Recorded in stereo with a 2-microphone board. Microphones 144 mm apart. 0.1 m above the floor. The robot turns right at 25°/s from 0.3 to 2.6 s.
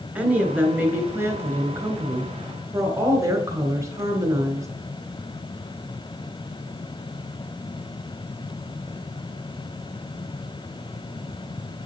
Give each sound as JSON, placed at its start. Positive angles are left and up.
{"t": 0.1, "sound": "a woman speaking", "side_deg": -10, "distance_m": 1.1}